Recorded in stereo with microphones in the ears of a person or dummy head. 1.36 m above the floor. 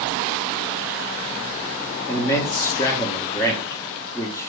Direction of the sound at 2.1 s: 20° left (ahead or behind).